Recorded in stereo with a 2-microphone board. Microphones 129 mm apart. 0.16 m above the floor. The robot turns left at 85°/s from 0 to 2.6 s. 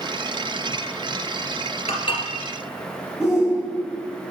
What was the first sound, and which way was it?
Dishes clattering, 55° left (ahead or behind).